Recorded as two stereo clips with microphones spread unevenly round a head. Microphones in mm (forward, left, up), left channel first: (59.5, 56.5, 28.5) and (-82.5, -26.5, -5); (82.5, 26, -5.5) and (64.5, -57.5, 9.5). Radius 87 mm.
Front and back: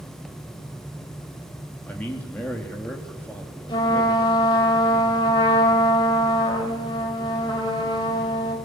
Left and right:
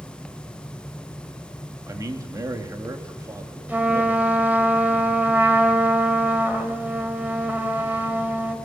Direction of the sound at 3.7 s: 35° right.